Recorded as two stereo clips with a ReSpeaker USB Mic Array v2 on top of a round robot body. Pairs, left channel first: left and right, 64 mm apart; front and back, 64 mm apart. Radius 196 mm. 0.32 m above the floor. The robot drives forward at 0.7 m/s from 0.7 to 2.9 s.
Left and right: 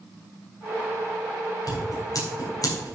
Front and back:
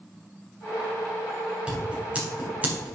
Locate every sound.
1.7 s scissors: 105° left, 4.5 m; by 3.0 s 115° left, 4.5 m